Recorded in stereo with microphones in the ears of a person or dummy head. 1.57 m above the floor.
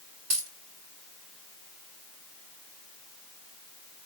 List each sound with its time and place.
0.3 s a dropped coin: 60° right (ahead or behind), 2.5 m